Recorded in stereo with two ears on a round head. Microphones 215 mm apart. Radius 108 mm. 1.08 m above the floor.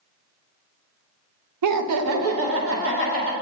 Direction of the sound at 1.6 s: 75° right (ahead or behind).